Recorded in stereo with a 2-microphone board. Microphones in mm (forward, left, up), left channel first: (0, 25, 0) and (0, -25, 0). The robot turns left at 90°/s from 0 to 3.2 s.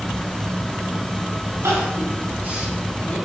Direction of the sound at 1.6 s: 70° right (ahead or behind).